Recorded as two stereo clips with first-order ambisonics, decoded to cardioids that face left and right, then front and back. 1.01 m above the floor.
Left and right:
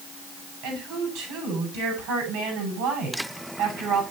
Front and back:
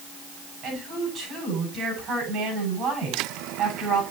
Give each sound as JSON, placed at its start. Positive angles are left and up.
{"t": 0.6, "sound": "a woman speaking", "azimuth_deg": -115, "distance_m": 9.0}